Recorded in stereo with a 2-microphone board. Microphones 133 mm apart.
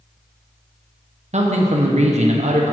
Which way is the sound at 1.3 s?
60° right (ahead or behind).